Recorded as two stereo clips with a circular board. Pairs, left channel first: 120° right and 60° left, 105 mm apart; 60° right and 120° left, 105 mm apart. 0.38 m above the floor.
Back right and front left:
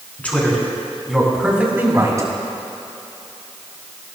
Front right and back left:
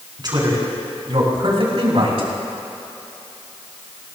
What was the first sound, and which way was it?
A man speaking, 165° left.